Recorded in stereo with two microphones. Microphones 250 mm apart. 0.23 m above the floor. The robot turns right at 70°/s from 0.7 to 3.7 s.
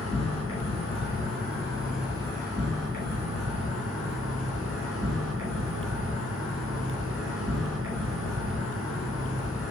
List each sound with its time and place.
0.0 s an insect: 90° left, 1.9 m; by 9.7 s 60° right, 1.9 m